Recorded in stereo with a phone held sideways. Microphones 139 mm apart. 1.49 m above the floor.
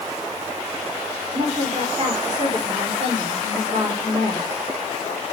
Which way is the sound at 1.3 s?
35° right (ahead or behind).